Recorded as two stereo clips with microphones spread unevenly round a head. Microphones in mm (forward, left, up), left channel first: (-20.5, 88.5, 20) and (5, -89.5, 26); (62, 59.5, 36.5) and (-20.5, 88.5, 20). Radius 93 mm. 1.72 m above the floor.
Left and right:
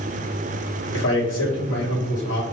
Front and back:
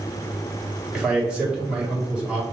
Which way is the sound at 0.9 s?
80° left.